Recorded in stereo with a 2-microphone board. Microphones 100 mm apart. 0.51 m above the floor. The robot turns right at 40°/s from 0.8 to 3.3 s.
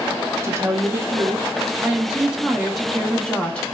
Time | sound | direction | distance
0.4 | a woman speaking | 30° right (ahead or behind) | 0.7 m